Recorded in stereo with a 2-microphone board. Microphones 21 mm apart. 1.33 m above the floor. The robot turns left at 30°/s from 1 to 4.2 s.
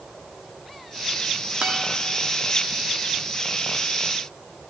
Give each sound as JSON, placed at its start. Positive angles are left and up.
{"t": 1.6, "sound": "a guitar", "side_deg": -55, "distance_m": 1.9}